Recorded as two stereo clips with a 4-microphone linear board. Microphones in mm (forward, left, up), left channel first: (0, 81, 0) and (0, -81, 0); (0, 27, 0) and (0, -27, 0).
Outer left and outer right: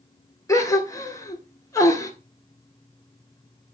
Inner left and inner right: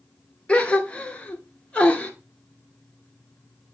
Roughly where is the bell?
No bell in this recording.